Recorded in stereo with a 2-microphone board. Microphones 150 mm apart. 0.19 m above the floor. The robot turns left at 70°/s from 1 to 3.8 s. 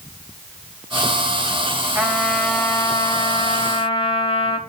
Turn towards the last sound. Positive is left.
turn(degrees=70)